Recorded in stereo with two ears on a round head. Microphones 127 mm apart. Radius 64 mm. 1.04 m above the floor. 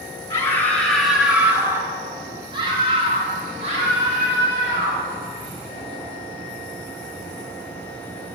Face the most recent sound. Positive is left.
turn(degrees=-55)  # may be behind; listen again after turning